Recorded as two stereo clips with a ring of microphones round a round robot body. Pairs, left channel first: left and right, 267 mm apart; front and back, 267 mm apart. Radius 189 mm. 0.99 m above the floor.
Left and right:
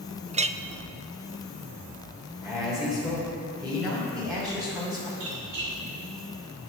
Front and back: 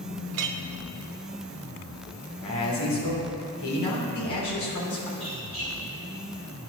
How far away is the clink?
About 0.6 m.